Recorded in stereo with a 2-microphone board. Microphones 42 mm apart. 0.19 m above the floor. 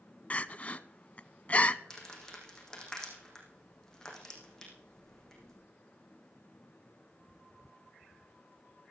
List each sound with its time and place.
0.3 s crying: 35° left (ahead or behind), 0.6 m
1.9 s crumpling: 15° left (ahead or behind), 5 m